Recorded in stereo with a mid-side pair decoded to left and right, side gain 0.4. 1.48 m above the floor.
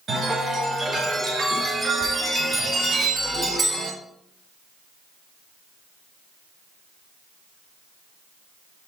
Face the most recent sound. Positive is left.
turn(degrees=-50)